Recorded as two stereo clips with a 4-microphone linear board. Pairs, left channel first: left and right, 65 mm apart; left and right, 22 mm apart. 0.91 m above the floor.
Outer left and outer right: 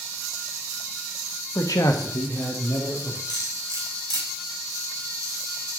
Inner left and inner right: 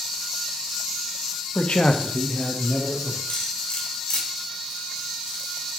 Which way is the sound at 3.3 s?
85° left.